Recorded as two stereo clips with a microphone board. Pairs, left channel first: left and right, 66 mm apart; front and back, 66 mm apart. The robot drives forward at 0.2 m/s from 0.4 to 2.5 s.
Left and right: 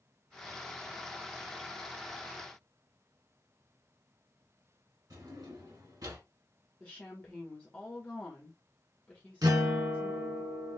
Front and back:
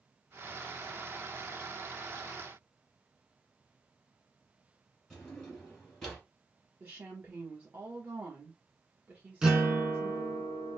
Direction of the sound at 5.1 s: 85° right.